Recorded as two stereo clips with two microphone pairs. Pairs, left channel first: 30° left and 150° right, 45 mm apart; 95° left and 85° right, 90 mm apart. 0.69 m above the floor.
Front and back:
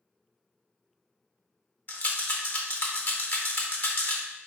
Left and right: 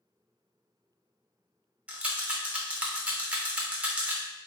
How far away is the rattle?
About 0.5 m.